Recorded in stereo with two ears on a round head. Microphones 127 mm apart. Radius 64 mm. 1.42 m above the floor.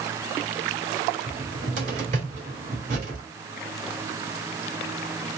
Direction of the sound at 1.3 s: 50° right (ahead or behind).